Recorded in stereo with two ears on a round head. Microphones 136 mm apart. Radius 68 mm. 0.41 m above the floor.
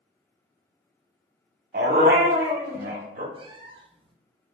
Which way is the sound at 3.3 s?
35° right (ahead or behind).